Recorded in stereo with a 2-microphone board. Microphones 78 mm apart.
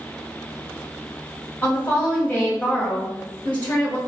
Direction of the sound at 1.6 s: 25° left (ahead or behind).